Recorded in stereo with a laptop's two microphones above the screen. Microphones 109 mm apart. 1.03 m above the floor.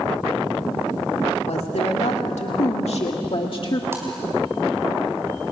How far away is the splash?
About 3.5 m.